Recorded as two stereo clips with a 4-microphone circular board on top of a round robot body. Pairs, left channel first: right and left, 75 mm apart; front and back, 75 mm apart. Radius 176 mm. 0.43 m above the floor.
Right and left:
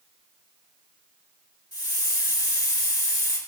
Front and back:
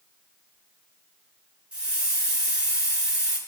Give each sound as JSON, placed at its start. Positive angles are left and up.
{"t": 1.7, "sound": "a hiss", "azimuth_deg": -105, "distance_m": 3.5}